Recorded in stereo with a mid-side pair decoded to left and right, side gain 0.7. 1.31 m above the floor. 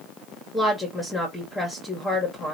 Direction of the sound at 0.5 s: 10° left.